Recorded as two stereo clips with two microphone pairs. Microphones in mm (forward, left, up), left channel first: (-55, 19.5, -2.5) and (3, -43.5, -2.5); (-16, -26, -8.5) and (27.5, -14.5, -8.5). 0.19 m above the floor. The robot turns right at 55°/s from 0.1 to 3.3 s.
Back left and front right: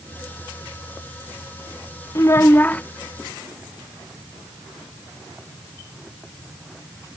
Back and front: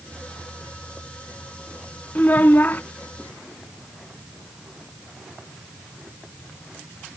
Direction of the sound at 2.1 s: 160° left.